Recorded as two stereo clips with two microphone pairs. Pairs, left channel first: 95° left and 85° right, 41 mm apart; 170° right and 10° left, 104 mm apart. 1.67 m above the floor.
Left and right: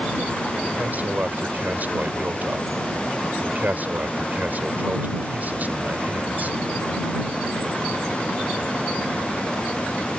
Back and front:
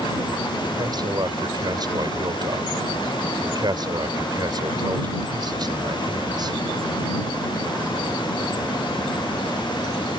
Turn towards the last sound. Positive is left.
turn(degrees=-40)